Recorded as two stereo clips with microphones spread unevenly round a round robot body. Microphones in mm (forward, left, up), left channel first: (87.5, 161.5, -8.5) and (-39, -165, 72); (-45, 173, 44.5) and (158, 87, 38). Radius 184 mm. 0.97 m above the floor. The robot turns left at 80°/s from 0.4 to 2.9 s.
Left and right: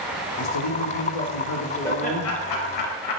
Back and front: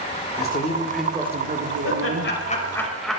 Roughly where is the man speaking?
Behind left.